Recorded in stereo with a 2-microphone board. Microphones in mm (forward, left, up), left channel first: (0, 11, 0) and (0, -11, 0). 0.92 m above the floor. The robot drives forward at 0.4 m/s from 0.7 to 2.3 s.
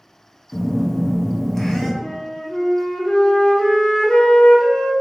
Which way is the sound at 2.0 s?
50° left (ahead or behind).